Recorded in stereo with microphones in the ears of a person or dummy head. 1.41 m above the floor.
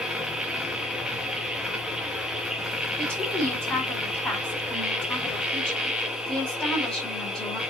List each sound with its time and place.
0.0 s a machine running: 5° right (ahead or behind), 1.0 m
3.0 s a woman speaking: 5° left (ahead or behind), 4 m